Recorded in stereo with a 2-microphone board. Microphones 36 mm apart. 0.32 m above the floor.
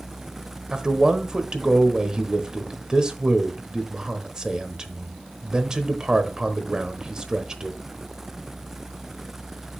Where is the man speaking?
20° right (ahead or behind), 1.0 m.